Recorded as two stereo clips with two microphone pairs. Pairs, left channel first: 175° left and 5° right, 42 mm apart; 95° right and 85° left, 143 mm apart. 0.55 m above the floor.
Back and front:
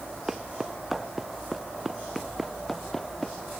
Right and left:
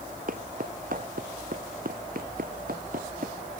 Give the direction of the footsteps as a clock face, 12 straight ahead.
10 o'clock.